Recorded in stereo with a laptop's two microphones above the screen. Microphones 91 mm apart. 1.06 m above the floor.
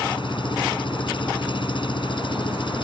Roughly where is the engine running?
Left.